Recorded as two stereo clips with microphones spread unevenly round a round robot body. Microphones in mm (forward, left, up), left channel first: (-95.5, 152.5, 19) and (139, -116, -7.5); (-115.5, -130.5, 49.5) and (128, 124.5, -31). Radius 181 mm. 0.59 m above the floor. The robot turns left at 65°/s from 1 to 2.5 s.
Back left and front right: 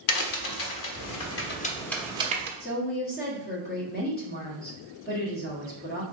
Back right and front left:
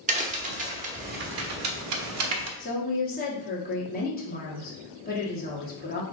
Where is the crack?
105° left, 0.8 m; by 2.5 s 5° left, 0.8 m.